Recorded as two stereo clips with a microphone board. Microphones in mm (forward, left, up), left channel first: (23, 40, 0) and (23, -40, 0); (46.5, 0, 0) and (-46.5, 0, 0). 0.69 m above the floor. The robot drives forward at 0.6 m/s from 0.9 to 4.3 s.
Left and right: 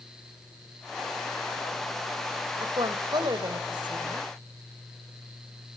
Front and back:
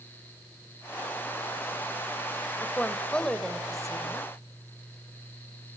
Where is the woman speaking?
70° right, 2.5 m; by 4.3 s 95° right, 2.5 m.